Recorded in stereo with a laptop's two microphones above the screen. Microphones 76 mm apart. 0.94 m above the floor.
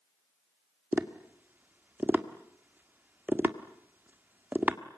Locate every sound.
0.9 s tapping: 25° right (ahead or behind), 1.6 m